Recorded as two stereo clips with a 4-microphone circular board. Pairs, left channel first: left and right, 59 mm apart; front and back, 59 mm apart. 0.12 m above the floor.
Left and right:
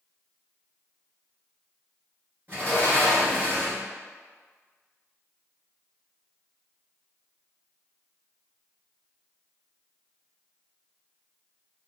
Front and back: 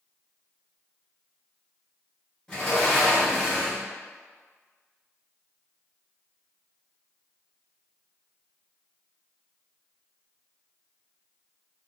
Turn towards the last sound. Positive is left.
turn(degrees=-60)